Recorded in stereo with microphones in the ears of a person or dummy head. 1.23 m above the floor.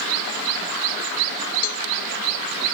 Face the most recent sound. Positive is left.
turn(degrees=50)  # may be behind; listen again after turning